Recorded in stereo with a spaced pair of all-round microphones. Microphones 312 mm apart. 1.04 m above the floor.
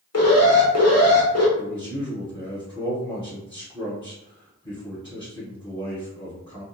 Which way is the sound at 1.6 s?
15° left (ahead or behind).